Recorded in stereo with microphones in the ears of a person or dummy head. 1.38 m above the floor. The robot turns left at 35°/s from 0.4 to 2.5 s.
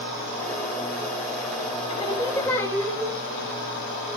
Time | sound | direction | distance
1.9 | singing | 30° left (ahead or behind) | 4 m